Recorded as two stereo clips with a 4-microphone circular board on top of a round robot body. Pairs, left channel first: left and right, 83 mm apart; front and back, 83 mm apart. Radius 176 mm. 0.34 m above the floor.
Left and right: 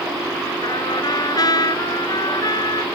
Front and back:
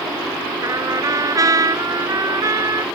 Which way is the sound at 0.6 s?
130° left.